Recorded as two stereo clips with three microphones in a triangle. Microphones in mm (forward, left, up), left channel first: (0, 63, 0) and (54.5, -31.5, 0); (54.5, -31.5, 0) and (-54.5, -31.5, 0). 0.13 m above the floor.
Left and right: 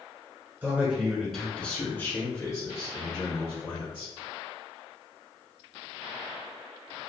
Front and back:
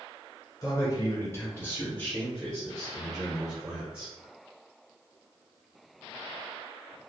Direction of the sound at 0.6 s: Straight ahead.